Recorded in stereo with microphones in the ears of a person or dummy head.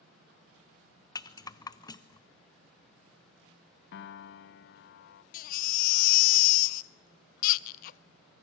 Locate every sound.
1.1 s a rattle: 20° left (ahead or behind), 0.6 m
3.9 s a piano: 55° left (ahead or behind), 0.7 m
5.3 s a baby crying: 50° left (ahead or behind), 0.5 m